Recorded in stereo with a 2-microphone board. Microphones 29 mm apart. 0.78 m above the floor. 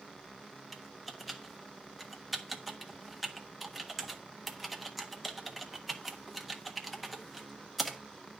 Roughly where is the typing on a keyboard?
Centre.